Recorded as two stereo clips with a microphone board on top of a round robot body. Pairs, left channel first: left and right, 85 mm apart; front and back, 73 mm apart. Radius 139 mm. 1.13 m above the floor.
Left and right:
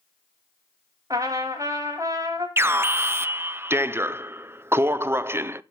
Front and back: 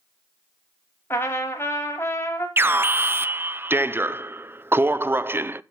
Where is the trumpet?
45° right, 1.0 m.